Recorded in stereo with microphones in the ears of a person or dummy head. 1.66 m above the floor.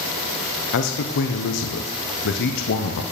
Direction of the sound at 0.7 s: 70° left (ahead or behind).